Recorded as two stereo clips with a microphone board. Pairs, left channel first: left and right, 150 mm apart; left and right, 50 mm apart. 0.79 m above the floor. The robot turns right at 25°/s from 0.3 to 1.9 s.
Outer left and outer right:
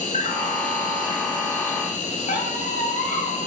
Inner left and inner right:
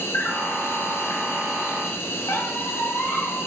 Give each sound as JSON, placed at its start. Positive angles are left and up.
{"t": 0.0, "sound": "an insect", "azimuth_deg": 70, "distance_m": 1.1}
{"t": 2.3, "sound": "a squeak", "side_deg": 65, "distance_m": 1.4}